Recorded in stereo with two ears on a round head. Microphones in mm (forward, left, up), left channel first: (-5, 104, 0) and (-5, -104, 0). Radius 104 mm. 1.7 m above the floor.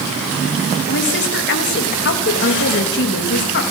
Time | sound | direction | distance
0.9 | a woman speaking | 50° left (ahead or behind) | 3 m